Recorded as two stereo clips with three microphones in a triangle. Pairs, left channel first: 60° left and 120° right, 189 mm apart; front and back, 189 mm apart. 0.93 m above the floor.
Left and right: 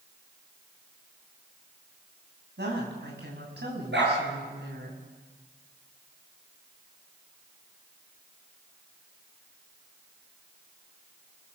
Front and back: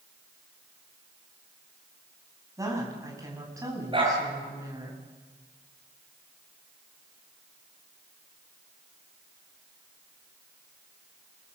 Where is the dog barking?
120° right, 8 m.